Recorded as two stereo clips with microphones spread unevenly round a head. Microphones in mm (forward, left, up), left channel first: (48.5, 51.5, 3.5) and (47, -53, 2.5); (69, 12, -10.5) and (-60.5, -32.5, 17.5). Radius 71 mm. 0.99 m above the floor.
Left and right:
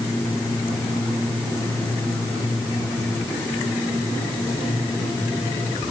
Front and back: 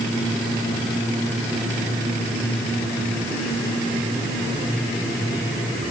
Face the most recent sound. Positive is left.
No sound to turn to.